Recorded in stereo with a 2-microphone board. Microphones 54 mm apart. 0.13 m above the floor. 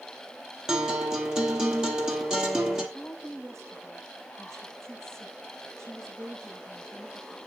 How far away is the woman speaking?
About 8.5 m.